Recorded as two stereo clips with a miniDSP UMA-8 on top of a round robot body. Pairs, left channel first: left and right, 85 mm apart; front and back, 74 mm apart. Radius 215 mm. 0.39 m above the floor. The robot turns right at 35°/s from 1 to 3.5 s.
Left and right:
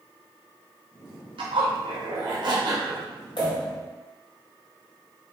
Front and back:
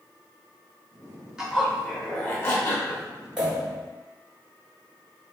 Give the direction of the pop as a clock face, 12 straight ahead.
9 o'clock.